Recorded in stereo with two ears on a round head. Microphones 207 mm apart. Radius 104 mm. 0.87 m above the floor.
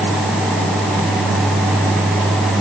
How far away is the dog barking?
I don't hear a dog barking.